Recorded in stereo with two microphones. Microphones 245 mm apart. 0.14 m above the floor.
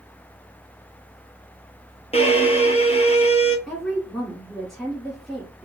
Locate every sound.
2.1 s a violin: 25° left (ahead or behind), 0.6 m
3.7 s a woman speaking: centre (ahead or behind), 1.2 m